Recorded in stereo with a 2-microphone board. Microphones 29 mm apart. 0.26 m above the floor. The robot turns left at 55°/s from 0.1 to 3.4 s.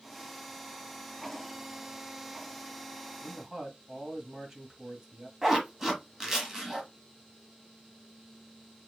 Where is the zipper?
15° right (ahead or behind), 1.2 m.